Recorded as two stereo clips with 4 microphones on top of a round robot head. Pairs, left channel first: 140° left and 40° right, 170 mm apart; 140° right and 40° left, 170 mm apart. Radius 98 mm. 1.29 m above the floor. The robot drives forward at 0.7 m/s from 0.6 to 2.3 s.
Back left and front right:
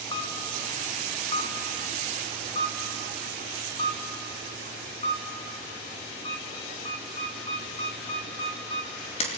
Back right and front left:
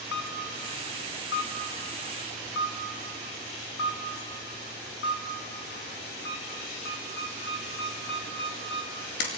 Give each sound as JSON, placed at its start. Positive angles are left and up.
{"t": 0.1, "sound": "a camera shutter", "azimuth_deg": -155, "distance_m": 1.9}